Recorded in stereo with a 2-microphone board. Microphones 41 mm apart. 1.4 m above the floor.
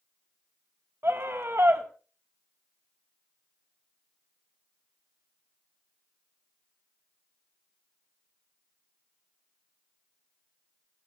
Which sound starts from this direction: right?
A scream, at 1.0 s.